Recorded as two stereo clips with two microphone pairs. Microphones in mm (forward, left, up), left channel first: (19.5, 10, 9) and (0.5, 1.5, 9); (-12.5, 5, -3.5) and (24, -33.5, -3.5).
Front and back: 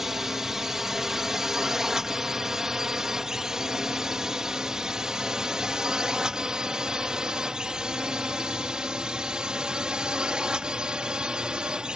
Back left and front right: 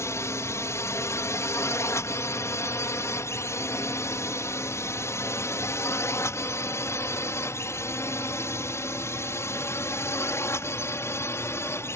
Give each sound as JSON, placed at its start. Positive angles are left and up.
{"t": 0.0, "sound": "a drone", "azimuth_deg": 135}